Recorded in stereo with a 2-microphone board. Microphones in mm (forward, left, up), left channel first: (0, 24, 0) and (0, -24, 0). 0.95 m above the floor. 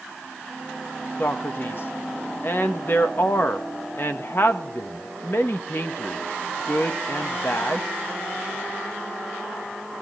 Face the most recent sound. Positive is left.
turn(degrees=50)  # may be behind; listen again after turning